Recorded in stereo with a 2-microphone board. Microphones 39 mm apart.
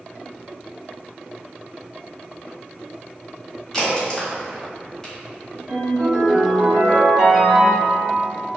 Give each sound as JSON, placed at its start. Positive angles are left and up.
{"t": 3.7, "sound": "a crack", "side_deg": 15, "distance_m": 1.4}
{"t": 5.7, "sound": "a ringtone", "side_deg": -15, "distance_m": 1.9}